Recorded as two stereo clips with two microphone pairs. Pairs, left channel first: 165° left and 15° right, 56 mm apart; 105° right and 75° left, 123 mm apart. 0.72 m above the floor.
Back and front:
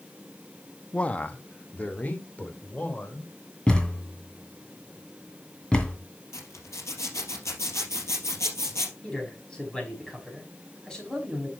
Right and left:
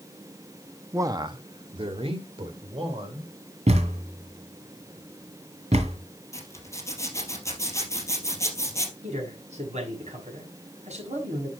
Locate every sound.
0.9 s a man speaking: 125° left, 0.6 m; by 3.3 s 110° left, 3 m
3.7 s a thud: 95° left, 2.5 m
6.3 s a zipper: 170° right, 3 m
9.0 s a man speaking: 90° left, 5 m